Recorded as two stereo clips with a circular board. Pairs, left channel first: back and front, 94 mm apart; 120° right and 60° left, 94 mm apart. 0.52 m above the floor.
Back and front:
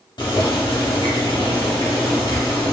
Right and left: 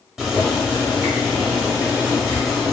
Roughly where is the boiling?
Behind left.